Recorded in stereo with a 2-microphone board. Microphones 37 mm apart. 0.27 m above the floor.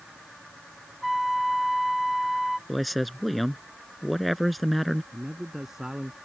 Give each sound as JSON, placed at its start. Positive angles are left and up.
{"t": 1.0, "sound": "a flute", "side_deg": 0}
{"t": 2.7, "sound": "a man speaking", "side_deg": 0}
{"t": 5.1, "sound": "a man speaking", "side_deg": -15}